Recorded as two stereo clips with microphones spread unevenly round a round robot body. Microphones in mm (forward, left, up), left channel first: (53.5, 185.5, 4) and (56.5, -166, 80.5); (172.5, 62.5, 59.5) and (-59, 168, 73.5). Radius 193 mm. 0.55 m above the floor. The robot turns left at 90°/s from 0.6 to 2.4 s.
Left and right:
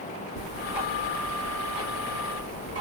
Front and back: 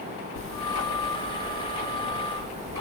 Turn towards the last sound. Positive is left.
turn(degrees=-150)